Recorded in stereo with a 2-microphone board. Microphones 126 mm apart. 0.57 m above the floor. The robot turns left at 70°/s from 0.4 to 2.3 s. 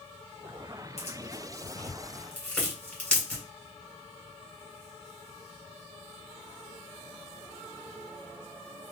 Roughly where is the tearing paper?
Left.